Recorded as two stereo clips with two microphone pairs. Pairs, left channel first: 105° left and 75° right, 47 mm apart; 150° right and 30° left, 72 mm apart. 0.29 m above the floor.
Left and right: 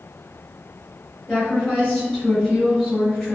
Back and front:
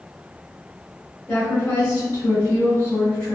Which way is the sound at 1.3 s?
Straight behind.